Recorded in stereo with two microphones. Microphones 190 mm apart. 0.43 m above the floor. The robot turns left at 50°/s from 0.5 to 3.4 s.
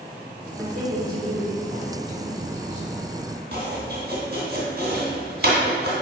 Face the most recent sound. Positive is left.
turn(degrees=-55)  # may be behind; listen again after turning